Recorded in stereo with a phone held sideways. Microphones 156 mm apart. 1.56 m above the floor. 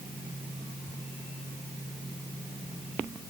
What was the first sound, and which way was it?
Only background noise.